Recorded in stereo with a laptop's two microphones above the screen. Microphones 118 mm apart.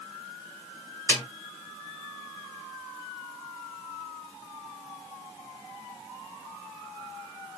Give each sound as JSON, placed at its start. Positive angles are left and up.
{"t": 1.1, "sound": "a snare drum", "side_deg": 15, "distance_m": 2.0}